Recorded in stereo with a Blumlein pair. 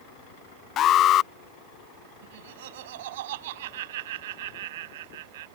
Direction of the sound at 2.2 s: 55° right.